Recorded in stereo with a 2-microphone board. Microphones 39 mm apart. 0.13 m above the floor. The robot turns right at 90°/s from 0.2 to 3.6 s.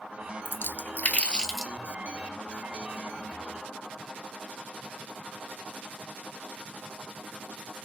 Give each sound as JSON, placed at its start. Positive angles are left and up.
{"t": 0.5, "sound": "a splash", "side_deg": 60, "distance_m": 0.7}